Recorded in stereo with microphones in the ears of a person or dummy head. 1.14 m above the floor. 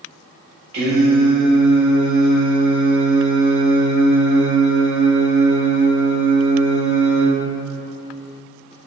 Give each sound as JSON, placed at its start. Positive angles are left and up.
{"t": 0.7, "sound": "singing", "side_deg": -55, "distance_m": 1.3}